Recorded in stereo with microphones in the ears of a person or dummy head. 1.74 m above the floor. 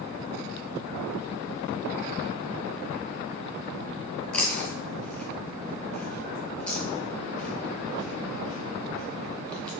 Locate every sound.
4.3 s chewing: 5° left (ahead or behind), 1.3 m